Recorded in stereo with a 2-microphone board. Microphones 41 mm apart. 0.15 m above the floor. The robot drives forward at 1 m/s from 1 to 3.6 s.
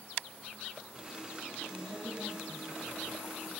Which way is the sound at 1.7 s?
70° right (ahead or behind).